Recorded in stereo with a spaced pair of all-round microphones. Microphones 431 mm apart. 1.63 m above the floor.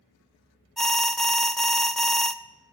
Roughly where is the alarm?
Centre.